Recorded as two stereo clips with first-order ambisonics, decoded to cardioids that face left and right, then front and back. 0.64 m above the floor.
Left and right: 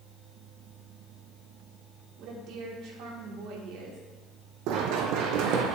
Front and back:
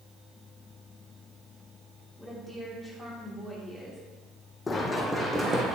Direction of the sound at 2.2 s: 95° right.